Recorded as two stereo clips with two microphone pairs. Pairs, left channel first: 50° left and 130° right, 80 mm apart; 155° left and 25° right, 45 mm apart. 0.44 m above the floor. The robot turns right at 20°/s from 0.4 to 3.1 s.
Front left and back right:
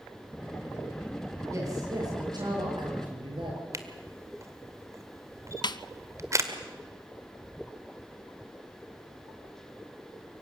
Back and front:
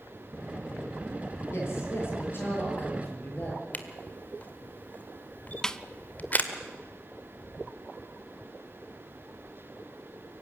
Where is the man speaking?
175° left, 8 m; by 3.6 s 150° right, 8 m.